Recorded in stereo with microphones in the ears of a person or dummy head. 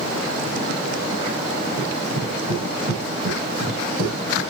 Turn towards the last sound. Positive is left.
turn(degrees=-35)  # may be behind; listen again after turning